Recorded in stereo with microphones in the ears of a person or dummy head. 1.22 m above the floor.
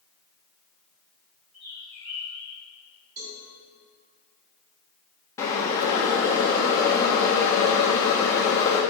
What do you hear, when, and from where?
1.5 s a bird: 40° right (ahead or behind), 2.5 m
3.2 s a cowbell: 45° right (ahead or behind), 1.6 m
5.4 s boiling: 10° left (ahead or behind), 1.2 m